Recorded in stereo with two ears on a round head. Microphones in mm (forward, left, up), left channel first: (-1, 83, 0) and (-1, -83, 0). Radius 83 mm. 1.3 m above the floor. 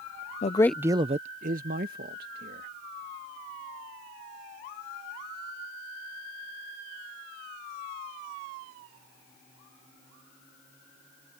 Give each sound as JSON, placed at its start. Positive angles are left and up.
{"t": 0.4, "sound": "a man speaking", "side_deg": 40}